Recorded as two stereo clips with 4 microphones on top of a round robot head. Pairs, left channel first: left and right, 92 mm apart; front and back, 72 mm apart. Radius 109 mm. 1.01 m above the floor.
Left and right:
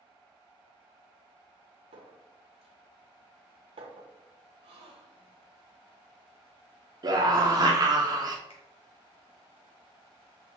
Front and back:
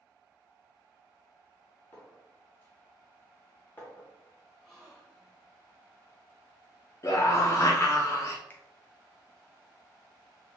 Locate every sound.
1.9 s a clink: 70° right, 0.6 m
4.6 s a gasp: 90° right, 0.6 m
7.0 s a scream: 50° right, 0.6 m
8.5 s a finger snap: 60° left, 0.7 m